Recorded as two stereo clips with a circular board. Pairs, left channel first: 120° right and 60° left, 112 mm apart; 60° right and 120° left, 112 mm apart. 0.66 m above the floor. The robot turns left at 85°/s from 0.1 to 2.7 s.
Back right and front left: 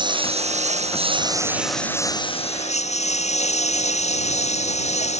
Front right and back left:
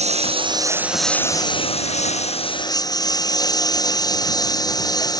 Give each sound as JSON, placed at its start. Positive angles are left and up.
{"t": 0.0, "sound": "a lawn mower", "azimuth_deg": 105}